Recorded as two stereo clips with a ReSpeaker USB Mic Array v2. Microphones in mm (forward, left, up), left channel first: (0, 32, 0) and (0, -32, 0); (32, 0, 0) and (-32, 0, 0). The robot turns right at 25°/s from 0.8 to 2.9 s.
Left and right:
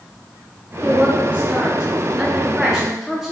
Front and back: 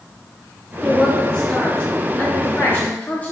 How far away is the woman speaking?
About 0.5 m.